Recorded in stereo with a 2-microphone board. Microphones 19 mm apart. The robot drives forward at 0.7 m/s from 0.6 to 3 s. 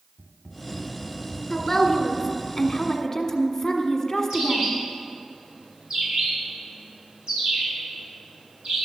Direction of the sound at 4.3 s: 45° right (ahead or behind).